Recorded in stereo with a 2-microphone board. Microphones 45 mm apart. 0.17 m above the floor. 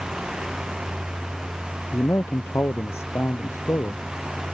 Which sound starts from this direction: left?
A man speaking, at 1.9 s.